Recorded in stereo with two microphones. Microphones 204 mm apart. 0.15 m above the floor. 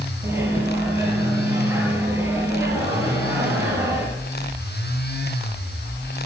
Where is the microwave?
15° right (ahead or behind), 2.5 m.